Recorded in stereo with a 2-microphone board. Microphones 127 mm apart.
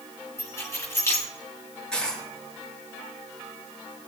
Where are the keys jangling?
25° left (ahead or behind), 2.5 m.